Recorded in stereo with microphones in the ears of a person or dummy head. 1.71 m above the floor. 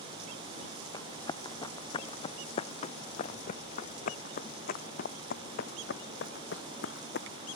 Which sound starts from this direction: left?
Running footsteps, at 0.9 s.